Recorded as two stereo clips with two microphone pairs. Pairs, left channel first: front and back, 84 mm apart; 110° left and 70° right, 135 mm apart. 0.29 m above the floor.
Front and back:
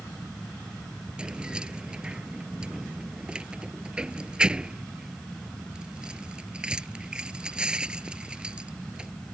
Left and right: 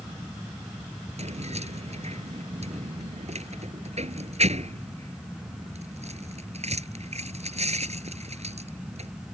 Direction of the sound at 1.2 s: 100° right.